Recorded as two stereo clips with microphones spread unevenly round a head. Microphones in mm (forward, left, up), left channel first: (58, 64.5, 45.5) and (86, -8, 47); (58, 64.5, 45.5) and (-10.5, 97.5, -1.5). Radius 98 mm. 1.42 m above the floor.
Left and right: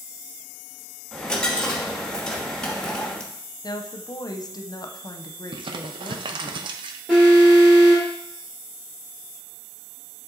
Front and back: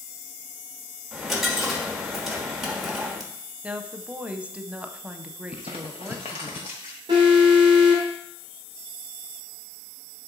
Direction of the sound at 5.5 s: 80° right.